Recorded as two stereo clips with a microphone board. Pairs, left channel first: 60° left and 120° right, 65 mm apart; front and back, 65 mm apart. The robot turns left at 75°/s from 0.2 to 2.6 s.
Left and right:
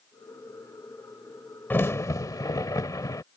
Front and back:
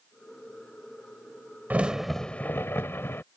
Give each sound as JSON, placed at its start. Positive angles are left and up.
{"t": 1.7, "sound": "a crack", "azimuth_deg": 115}